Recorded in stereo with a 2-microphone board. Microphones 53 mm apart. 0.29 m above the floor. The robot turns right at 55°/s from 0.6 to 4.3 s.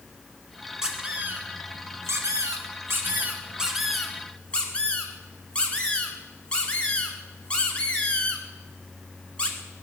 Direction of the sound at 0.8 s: 10° right (ahead or behind).